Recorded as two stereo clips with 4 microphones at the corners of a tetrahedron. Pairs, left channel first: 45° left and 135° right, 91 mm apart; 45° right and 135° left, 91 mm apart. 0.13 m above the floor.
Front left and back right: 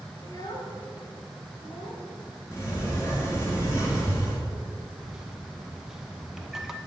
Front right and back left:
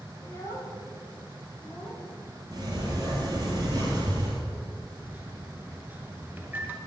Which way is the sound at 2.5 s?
100° left.